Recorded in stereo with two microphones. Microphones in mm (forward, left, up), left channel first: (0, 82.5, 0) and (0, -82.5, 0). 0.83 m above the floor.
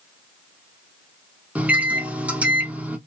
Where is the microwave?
10° right (ahead or behind), 0.6 m.